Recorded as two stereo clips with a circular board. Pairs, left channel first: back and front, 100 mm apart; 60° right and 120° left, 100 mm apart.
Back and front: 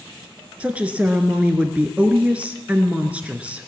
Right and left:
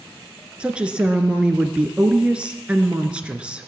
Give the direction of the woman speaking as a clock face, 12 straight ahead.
10 o'clock.